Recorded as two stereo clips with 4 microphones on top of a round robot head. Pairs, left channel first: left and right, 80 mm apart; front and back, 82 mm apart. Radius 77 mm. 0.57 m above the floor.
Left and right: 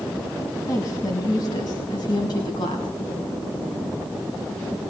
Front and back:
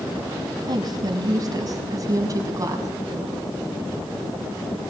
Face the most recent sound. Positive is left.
turn(degrees=130)